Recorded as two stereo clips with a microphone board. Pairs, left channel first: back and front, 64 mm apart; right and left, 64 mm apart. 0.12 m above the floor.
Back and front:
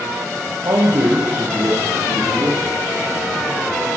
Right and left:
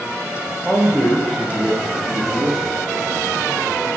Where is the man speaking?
5° right, 3.5 m; by 2.7 s straight ahead, 5 m.